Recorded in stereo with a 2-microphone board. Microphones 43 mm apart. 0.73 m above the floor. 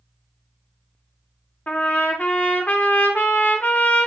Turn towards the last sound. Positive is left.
turn(degrees=40)  # may be behind; listen again after turning